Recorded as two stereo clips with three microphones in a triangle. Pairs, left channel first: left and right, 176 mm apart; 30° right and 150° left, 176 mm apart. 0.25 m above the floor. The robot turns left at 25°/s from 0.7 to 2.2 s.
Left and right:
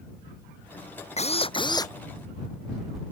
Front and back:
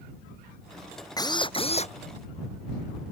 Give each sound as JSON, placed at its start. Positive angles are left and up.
{"t": 1.2, "sound": "a drill", "azimuth_deg": 40}